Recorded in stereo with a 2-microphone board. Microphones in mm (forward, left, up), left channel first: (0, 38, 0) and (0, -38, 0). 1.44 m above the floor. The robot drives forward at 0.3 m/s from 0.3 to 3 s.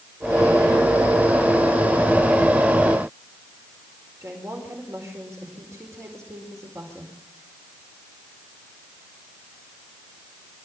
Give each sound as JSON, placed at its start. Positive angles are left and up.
{"t": 4.2, "sound": "a woman speaking", "side_deg": -40, "distance_m": 4.5}